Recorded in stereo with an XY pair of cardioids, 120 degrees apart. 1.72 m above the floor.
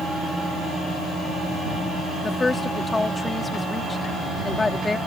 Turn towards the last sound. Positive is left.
turn(degrees=20)